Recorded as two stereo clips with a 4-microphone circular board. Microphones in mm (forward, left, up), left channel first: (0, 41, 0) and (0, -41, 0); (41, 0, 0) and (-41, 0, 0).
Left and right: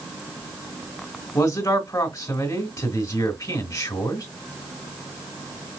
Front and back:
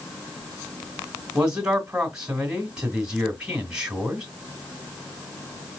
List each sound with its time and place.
1.4 s a man speaking: 105° left, 2 m